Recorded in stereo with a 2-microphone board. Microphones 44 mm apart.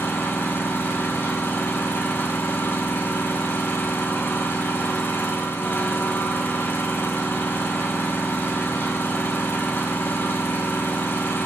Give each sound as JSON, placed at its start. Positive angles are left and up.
{"t": 0.0, "sound": "an engine running", "side_deg": 55, "distance_m": 3.5}